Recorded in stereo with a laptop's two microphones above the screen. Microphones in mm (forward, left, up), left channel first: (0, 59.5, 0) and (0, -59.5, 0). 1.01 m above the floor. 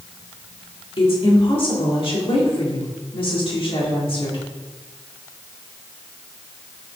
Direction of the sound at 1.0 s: 50° left (ahead or behind).